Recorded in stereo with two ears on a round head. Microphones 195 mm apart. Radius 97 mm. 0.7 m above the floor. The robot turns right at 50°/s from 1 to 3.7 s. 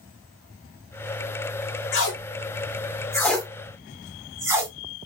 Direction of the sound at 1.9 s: 60° left (ahead or behind).